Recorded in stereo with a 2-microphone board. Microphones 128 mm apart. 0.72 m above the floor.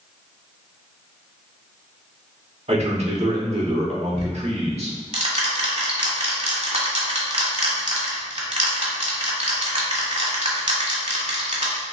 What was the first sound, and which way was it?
A man speaking, 60° right (ahead or behind).